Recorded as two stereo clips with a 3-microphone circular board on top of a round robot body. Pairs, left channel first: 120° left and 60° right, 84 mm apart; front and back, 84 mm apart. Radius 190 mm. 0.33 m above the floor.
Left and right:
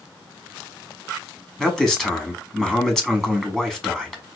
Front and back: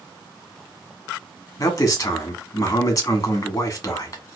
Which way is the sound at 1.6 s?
35° left.